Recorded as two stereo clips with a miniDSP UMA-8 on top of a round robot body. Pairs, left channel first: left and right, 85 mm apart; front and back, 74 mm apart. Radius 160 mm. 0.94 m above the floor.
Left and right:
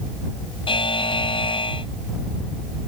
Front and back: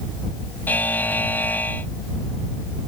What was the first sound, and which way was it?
A buzzer, 70° left.